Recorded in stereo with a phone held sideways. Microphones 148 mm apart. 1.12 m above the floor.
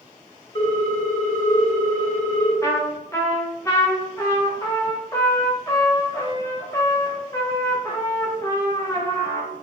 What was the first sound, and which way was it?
A ringtone, 35° left (ahead or behind).